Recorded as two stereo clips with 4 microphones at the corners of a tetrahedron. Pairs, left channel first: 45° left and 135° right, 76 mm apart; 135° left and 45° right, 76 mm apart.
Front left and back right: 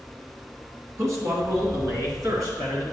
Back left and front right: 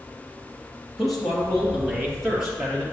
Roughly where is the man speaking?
Behind right.